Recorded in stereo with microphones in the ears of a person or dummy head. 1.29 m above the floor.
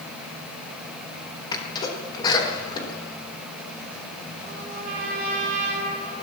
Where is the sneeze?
25° left (ahead or behind), 3.5 m.